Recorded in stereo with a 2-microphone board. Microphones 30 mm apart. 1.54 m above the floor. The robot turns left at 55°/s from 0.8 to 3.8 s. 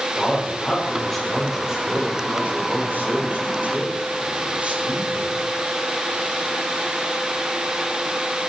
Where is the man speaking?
30° left, 6.5 m; by 5.4 s 135° right, 6.5 m.